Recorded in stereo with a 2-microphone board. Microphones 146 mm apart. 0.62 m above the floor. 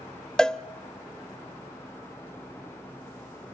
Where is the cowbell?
5° left (ahead or behind), 0.5 m.